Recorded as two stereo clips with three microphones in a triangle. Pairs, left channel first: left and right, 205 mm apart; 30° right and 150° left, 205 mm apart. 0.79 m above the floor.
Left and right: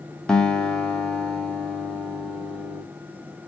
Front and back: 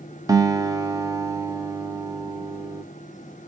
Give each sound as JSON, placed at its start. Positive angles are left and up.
{"t": 0.3, "sound": "a guitar", "azimuth_deg": 170, "distance_m": 0.5}